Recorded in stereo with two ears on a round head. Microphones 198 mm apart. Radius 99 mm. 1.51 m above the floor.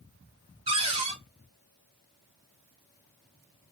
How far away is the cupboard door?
About 0.6 m.